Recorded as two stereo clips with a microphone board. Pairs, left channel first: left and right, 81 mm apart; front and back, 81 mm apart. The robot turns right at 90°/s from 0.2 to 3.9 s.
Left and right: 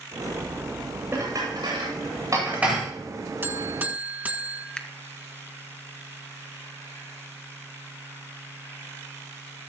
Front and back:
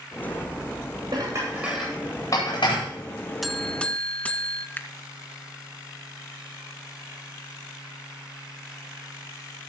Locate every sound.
1.1 s dishes clattering: 155° right, 9 m; by 2.8 s straight ahead, 9 m
3.4 s a buzzer: 90° right, 1.4 m; by 4.7 s 50° right, 1.4 m
4.8 s a finger snap: 25° left, 1.2 m